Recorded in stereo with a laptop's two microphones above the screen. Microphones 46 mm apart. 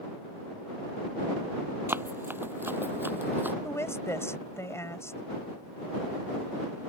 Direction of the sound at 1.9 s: 55° right (ahead or behind).